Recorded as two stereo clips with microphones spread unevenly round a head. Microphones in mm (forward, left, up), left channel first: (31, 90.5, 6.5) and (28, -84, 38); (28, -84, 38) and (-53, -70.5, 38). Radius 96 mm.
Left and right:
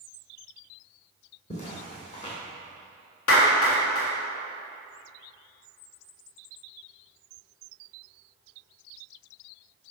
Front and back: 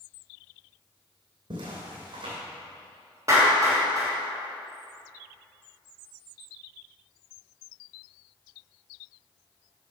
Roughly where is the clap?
Left.